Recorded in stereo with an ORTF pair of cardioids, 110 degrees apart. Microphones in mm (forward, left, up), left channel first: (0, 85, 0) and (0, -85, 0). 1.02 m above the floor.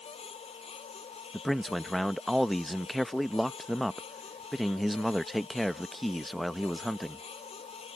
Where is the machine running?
35° left.